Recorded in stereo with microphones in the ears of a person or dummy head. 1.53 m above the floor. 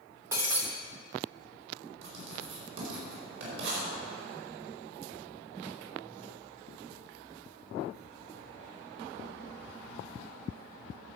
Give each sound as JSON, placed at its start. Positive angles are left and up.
{"t": 0.3, "sound": "breaking glass", "side_deg": -15, "distance_m": 1.1}
{"t": 2.0, "sound": "writing", "side_deg": -70, "distance_m": 4.5}